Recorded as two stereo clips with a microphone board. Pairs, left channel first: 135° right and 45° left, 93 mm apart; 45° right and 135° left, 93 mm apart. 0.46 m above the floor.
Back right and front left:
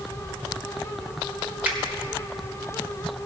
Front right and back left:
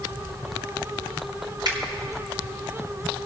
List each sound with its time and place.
1.6 s a finger snap: 115° left, 1.5 m